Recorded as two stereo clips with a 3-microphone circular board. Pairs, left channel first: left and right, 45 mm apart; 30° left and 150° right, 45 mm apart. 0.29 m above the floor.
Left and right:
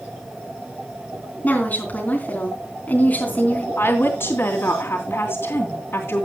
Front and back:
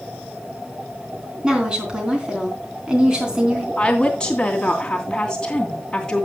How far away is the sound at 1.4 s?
About 3.5 m.